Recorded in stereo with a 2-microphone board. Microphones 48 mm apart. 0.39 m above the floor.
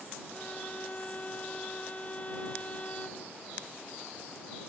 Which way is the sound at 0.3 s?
30° left (ahead or behind).